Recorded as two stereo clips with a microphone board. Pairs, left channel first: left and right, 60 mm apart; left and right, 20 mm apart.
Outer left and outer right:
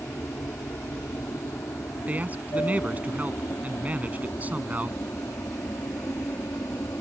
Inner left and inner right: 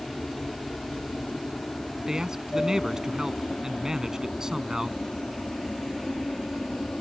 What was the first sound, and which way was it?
An aircraft, 65° left (ahead or behind).